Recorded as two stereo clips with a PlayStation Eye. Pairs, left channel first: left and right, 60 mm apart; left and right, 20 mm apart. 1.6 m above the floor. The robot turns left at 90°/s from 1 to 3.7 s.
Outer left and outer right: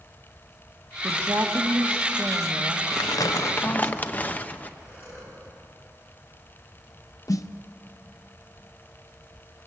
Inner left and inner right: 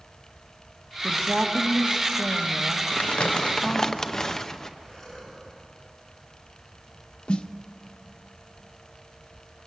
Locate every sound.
1.0 s a woman speaking: 45° right, 1.8 m; by 3.9 s 75° left, 1.8 m
2.9 s crumpling: 100° left, 0.8 m; by 4.7 s 25° left, 0.8 m
4.8 s breathing: 45° left (ahead or behind), 6 m
7.3 s a snare drum: 65° left (ahead or behind), 0.7 m